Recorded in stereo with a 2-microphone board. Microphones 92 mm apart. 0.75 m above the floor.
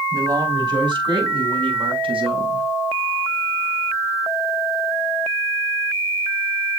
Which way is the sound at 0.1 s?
45° right (ahead or behind).